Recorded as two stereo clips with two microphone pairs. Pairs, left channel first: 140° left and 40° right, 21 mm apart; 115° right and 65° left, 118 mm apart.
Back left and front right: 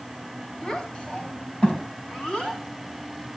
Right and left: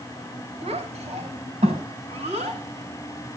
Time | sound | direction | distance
0.6 | a child speaking | 95° left | 4.5 m